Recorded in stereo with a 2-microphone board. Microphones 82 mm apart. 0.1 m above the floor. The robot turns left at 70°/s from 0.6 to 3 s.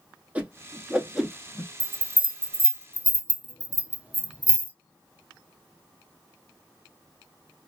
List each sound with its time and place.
0.3 s a whoosh: 20° right (ahead or behind), 0.6 m; by 1.7 s 10° left (ahead or behind), 0.6 m
1.8 s a bell: 70° right (ahead or behind), 0.6 m; by 4.7 s 15° right (ahead or behind), 0.6 m